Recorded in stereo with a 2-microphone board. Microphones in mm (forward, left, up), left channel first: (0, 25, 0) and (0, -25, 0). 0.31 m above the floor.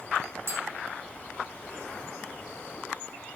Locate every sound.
0.5 s tapping: 55° right (ahead or behind), 4 m